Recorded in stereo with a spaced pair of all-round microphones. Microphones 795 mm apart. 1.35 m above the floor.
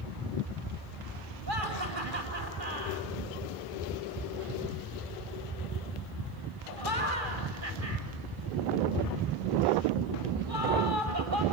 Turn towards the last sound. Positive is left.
turn(degrees=-80)